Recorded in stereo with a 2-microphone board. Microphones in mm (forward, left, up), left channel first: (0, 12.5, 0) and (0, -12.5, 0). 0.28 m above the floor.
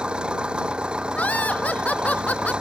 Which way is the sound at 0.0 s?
40° right (ahead or behind).